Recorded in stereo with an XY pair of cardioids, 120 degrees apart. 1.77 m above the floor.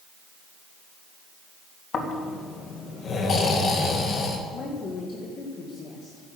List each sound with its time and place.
1.9 s snoring: 45° left, 2.5 m
4.5 s a woman speaking: 45° left, 2 m